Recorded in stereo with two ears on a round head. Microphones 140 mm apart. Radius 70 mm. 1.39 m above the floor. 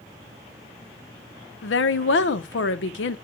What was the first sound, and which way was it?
A woman speaking, 85° left.